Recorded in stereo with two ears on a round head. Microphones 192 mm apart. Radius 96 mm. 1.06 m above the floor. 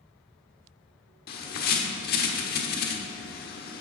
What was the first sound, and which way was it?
A bird, 45° left (ahead or behind).